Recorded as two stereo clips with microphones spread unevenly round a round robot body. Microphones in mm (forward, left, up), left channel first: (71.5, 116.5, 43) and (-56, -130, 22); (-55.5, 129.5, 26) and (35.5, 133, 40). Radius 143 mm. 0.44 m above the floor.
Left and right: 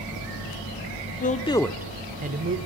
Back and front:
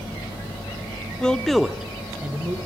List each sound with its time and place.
1.2 s a man speaking: 115° left, 1.0 m; by 2.6 s 75° right, 1.3 m